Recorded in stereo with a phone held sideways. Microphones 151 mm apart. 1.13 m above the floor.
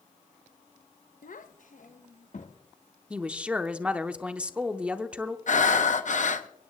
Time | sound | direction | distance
1.2 | a child speaking | 70° left (ahead or behind) | 0.6 m
3.1 | a woman speaking | 10° right (ahead or behind) | 0.7 m
5.5 | breathing | 60° left (ahead or behind) | 0.7 m